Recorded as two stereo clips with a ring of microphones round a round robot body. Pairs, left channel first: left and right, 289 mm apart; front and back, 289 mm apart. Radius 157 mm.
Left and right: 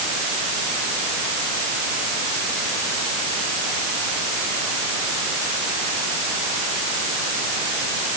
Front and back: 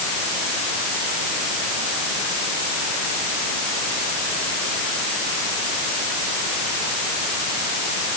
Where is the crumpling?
No crumpling in this recording.